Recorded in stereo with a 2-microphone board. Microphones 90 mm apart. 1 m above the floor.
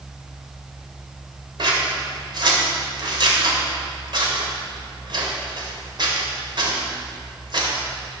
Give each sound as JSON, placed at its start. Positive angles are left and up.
{"t": 1.6, "sound": "scissors", "side_deg": -60, "distance_m": 2.5}